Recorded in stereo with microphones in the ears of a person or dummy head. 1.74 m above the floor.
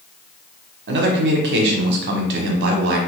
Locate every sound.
0.9 s a man speaking: 65° right (ahead or behind), 1.0 m